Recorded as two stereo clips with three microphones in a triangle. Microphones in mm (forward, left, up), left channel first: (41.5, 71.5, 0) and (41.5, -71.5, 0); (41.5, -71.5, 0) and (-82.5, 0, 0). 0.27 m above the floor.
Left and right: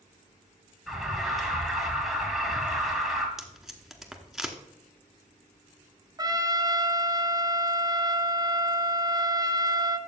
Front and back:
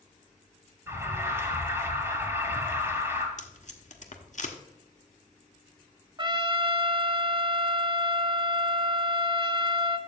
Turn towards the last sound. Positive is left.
turn(degrees=-150)